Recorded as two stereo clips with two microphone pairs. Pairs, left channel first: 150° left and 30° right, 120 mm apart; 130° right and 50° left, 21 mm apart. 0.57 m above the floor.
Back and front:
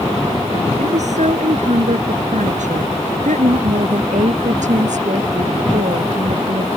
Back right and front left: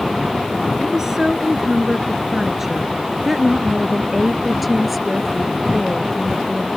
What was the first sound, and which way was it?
A woman speaking, 15° right.